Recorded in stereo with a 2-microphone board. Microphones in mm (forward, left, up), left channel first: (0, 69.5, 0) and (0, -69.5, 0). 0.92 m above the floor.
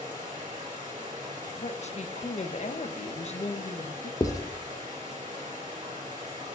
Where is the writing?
25° left (ahead or behind), 0.7 m.